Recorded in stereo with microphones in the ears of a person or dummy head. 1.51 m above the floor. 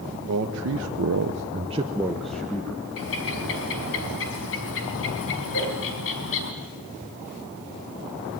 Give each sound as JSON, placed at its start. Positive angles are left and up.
{"t": 0.3, "sound": "a man speaking", "side_deg": -60, "distance_m": 1.7}
{"t": 3.0, "sound": "a bird", "side_deg": 70, "distance_m": 3.5}
{"t": 5.5, "sound": "a whoosh", "side_deg": 65, "distance_m": 10.0}